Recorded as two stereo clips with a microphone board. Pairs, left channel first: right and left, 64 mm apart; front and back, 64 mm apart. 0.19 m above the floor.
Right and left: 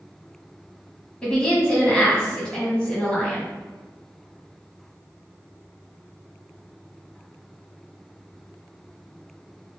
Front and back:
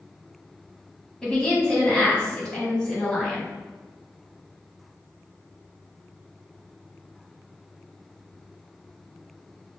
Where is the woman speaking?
50° right, 1.0 m.